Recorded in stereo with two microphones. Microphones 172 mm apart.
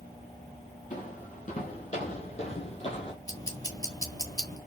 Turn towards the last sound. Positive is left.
turn(degrees=20)  # may be behind; listen again after turning